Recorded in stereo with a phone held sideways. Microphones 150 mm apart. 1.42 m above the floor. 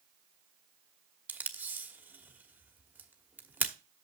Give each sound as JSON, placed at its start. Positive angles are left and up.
{"t": 1.3, "sound": "tape being pulled", "side_deg": -10, "distance_m": 1.0}